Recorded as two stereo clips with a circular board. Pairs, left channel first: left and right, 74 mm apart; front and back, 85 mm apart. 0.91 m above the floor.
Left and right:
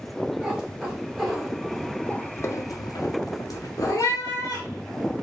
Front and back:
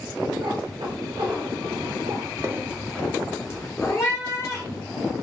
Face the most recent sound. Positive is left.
turn(degrees=40)